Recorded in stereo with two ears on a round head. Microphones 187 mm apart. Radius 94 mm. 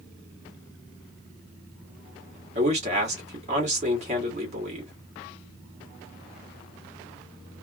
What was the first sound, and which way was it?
A man speaking, 35° right (ahead or behind).